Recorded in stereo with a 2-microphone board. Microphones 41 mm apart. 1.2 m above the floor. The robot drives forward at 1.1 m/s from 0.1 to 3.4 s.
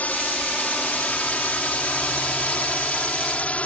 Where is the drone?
40° left (ahead or behind); by 3.7 s 35° left (ahead or behind).